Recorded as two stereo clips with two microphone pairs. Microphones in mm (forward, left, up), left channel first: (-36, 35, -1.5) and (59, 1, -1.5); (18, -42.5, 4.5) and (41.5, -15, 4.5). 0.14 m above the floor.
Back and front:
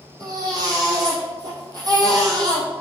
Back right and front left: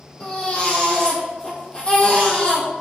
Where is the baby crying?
65° right, 2 m.